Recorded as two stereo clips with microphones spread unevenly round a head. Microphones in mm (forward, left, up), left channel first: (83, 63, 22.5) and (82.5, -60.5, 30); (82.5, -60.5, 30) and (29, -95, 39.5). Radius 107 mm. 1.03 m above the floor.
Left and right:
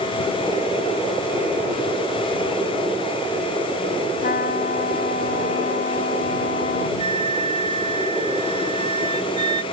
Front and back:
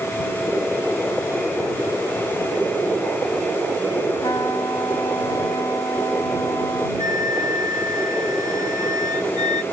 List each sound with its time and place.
4.2 s a trumpet: 100° left
7.0 s a flute: 150° left